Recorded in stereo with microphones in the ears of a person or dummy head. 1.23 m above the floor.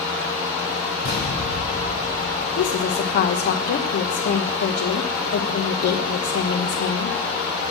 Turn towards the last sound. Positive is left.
turn(degrees=50)  # may be behind; listen again after turning